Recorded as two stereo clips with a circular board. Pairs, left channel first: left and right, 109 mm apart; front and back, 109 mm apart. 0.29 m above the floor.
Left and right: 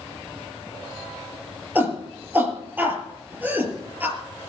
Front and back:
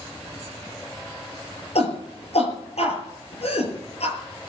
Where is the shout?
15° right, 5.5 m.